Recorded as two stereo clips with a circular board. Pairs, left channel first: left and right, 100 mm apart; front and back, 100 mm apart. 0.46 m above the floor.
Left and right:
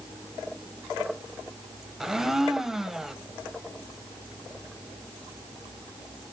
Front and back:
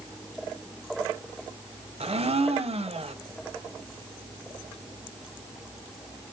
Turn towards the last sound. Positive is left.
turn(degrees=-175)